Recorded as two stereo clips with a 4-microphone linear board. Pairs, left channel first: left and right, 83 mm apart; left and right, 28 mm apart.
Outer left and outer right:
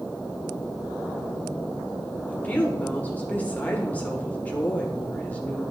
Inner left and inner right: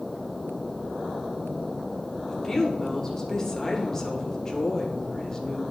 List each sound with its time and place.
2.3 s a woman speaking: 20° left (ahead or behind), 1.7 m